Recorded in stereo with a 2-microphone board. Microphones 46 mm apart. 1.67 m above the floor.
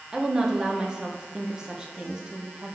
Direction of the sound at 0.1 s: 20° right (ahead or behind).